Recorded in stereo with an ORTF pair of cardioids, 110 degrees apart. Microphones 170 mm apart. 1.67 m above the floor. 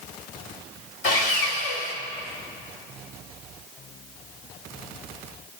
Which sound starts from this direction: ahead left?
Sawing, at 1.0 s.